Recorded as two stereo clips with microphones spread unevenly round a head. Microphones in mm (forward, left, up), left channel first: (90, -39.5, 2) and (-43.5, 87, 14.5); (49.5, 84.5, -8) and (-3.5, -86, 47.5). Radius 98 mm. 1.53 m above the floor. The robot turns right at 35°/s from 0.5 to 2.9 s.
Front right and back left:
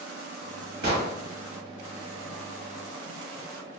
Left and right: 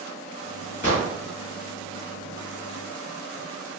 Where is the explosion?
135° left, 1.1 m; by 1.1 s 145° left, 1.1 m.